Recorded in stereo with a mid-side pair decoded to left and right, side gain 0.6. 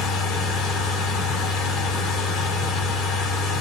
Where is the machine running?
65° left, 5 m.